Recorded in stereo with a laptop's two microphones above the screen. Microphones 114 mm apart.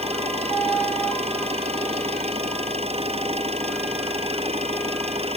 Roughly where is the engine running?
Right.